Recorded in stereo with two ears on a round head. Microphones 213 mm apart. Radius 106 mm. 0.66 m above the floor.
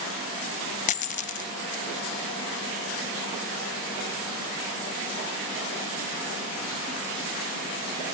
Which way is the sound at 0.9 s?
30° left (ahead or behind).